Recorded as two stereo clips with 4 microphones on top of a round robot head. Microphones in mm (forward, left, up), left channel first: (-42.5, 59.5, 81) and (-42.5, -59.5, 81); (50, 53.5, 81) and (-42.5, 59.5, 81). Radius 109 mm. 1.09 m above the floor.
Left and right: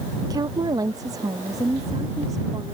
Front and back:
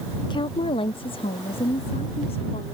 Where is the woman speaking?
35° right; by 2.8 s 25° right.